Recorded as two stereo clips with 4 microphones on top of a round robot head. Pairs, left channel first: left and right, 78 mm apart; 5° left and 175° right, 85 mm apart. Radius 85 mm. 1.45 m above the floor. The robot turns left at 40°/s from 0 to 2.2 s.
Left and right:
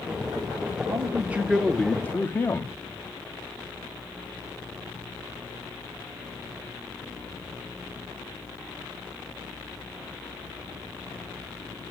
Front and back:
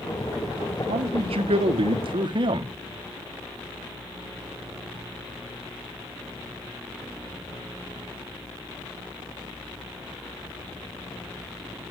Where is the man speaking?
150° right, 1.5 m; by 2.7 s 160° left, 1.5 m.